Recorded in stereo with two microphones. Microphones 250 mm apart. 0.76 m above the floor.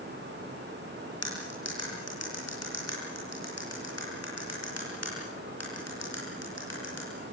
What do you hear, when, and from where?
1.2 s cutlery clinking: 90° left, 9 m